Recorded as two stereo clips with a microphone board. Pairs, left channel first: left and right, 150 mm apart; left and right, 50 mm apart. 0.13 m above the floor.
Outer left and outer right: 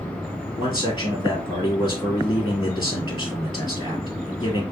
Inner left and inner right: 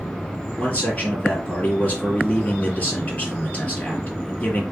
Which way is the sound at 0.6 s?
30° left (ahead or behind).